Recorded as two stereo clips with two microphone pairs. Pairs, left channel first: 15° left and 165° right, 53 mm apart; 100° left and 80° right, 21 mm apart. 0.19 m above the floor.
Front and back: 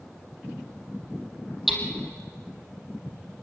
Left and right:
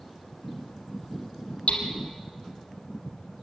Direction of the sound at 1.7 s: 110° left.